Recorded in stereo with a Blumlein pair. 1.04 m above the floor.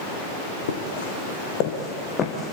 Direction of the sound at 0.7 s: 60° left.